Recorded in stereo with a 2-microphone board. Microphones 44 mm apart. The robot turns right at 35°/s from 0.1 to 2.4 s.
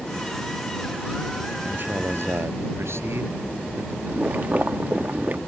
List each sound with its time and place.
1.6 s a man speaking: 40° right (ahead or behind); by 4.0 s 65° right (ahead or behind)
4.1 s boiling: 40° right (ahead or behind)